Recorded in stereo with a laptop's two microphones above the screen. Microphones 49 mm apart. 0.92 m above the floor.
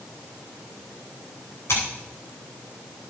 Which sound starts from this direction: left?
Scissors, at 1.7 s.